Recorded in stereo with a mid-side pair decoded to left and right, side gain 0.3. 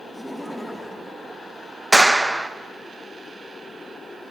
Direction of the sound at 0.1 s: 5° left.